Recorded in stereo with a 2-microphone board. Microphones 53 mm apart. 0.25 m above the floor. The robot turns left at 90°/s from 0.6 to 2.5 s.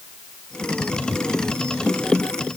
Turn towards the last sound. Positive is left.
No sound to turn to.